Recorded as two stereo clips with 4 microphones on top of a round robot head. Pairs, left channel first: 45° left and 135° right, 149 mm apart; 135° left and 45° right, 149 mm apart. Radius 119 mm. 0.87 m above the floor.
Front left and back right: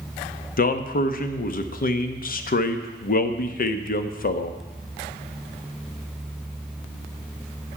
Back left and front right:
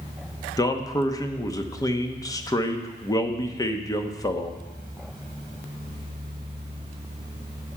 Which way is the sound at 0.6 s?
65° left.